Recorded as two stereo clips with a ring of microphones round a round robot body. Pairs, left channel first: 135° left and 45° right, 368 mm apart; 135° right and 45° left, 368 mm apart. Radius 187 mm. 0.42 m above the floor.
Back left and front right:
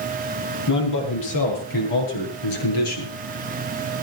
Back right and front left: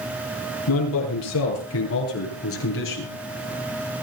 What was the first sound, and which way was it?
A man speaking, straight behind.